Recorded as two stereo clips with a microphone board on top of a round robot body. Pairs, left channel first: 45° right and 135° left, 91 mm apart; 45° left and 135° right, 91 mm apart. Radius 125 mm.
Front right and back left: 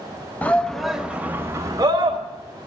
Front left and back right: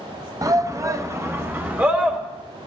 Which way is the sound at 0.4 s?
110° right.